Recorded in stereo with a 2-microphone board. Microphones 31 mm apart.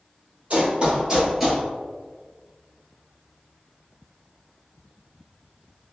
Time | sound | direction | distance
0.5 | running footsteps | 35° right (ahead or behind) | 1.4 m